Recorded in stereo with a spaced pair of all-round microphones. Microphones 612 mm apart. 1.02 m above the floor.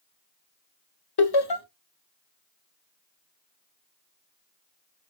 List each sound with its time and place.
1.2 s laughter: 40° left (ahead or behind), 0.6 m